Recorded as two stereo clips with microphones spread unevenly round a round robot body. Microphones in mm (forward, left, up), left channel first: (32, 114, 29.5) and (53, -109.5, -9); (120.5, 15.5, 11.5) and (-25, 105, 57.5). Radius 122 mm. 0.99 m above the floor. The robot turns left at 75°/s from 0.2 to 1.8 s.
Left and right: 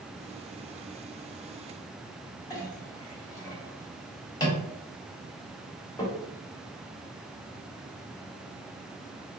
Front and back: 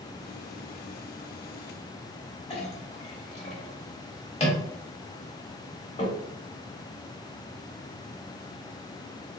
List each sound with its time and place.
2.5 s a clink: 25° left, 1.1 m